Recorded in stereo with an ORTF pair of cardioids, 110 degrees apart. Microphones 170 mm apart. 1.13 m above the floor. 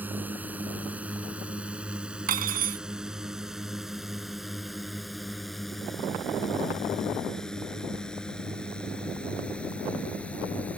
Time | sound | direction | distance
0.0 | a drone | 10° right | ?
2.3 | cutlery clinking | 60° right | ?